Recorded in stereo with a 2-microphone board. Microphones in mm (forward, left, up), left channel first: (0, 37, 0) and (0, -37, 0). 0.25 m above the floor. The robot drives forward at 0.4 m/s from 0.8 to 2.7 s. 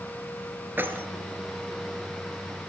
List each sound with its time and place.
0.8 s keys jangling: 30° right (ahead or behind), 2.5 m